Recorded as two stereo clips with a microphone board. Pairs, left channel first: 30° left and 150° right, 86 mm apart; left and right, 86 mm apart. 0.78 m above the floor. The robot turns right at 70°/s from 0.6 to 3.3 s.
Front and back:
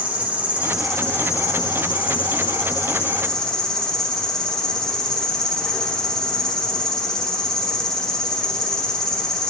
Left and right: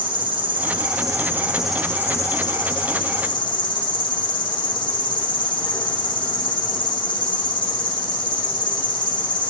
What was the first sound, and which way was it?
An insect, 75° right.